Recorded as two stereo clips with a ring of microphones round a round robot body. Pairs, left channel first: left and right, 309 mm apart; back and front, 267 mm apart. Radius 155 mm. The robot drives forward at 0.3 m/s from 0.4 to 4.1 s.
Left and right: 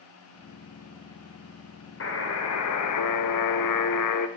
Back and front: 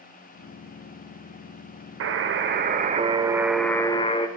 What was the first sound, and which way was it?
A buzzer, 40° left.